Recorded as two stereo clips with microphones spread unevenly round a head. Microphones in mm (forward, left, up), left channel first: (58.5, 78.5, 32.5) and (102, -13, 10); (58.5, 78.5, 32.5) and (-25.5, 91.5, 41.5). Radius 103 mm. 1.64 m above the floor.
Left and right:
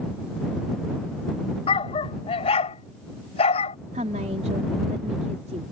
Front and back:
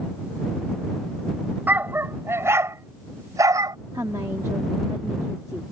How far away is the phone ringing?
No phone ringing in this recording.